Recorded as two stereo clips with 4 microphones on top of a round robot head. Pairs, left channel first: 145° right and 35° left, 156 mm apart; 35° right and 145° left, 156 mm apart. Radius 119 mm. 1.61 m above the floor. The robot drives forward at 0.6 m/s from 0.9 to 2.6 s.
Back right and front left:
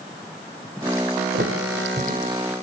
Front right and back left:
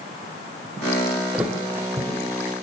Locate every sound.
1.3 s a thud: 60° left, 1.9 m; by 2.5 s 90° left, 1.8 m